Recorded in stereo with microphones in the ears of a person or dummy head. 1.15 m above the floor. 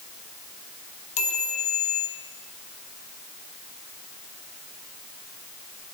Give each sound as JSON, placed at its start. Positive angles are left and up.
{"t": 1.2, "sound": "a chime", "side_deg": 35, "distance_m": 0.6}